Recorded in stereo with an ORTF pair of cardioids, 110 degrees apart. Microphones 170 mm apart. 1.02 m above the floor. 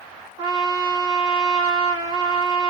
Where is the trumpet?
25° right, 1.0 m.